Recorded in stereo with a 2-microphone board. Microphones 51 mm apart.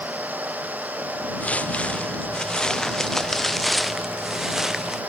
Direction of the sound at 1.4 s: 30° left (ahead or behind).